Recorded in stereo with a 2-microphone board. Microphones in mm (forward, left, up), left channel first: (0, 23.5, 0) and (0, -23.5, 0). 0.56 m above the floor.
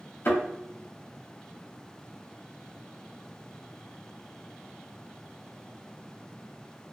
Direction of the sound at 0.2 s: 55° left (ahead or behind).